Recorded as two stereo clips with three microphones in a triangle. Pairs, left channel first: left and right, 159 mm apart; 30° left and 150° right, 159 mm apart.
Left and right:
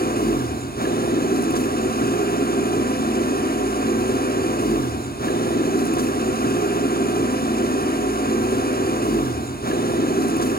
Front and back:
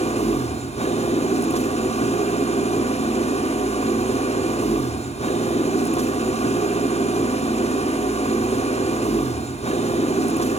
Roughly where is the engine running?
Left.